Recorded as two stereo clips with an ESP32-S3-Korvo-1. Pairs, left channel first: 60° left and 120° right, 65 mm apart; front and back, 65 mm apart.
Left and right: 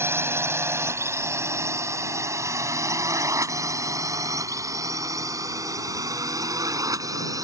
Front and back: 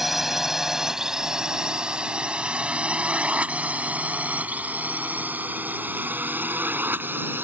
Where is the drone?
95° right; by 7.4 s 130° right.